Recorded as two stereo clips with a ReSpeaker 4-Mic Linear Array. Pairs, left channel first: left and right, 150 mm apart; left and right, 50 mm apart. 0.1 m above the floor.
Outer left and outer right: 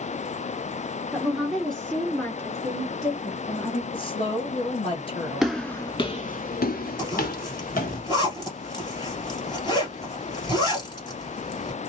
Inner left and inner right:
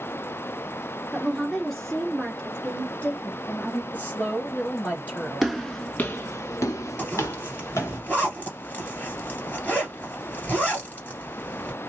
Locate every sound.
1.1 s a woman speaking: 5° right (ahead or behind), 1.7 m; by 3.8 s 30° left (ahead or behind), 1.8 m
3.9 s a woman speaking: 35° left (ahead or behind), 2 m
5.4 s footsteps: centre (ahead or behind), 0.7 m; by 8.0 s 65° left (ahead or behind), 1.4 m
7.0 s a zipper: 30° left (ahead or behind), 2.5 m